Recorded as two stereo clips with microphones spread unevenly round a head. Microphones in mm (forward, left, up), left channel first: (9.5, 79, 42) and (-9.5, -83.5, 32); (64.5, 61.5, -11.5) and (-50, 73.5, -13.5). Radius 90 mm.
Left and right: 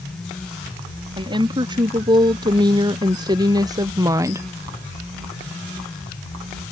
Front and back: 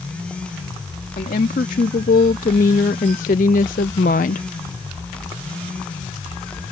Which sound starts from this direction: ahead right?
A woman speaking, at 1.2 s.